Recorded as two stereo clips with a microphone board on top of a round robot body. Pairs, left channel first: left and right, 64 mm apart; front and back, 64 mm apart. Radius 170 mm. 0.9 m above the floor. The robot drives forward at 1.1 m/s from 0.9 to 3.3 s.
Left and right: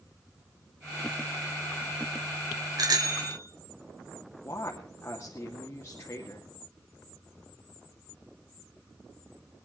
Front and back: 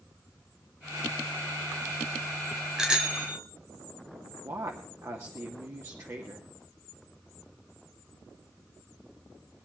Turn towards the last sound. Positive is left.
turn(degrees=145)